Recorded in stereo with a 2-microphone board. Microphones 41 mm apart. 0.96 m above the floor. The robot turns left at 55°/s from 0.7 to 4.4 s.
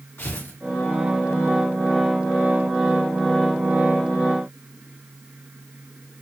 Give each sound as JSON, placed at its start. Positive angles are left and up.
{"t": 0.2, "sound": "tearing paper", "side_deg": 65, "distance_m": 2.5}